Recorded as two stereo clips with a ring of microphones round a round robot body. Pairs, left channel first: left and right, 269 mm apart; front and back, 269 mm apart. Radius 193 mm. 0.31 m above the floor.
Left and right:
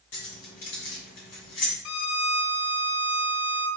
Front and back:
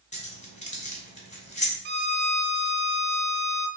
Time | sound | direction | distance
0.1 | keys jangling | 60° left | 2 m
1.9 | a violin | 120° left | 0.6 m